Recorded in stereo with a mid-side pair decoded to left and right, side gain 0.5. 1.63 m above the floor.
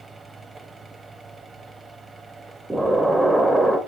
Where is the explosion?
10° right, 0.9 m.